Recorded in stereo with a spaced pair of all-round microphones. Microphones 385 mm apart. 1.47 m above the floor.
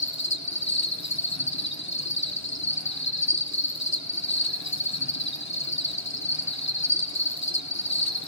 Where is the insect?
45° left (ahead or behind), 1.3 m.